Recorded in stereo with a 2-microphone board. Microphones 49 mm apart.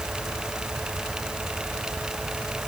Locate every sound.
Only background noise.